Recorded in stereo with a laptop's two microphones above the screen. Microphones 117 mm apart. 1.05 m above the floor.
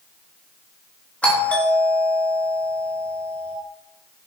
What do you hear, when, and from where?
1.2 s a doorbell: 10° left (ahead or behind), 2.5 m